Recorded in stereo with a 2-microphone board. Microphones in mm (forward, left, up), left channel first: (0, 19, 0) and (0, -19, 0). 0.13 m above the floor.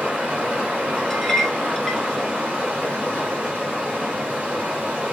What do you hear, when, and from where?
0.0 s running water: 20° right (ahead or behind), 2.5 m
1.1 s a clink: 10° left (ahead or behind), 0.7 m